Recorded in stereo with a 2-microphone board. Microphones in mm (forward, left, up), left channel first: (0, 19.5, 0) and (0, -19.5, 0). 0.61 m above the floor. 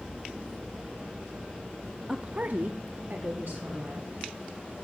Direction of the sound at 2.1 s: 10° right (ahead or behind).